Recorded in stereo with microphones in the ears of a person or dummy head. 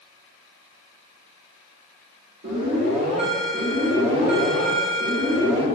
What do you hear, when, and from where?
2.4 s an alarm: 50° right (ahead or behind), 4.5 m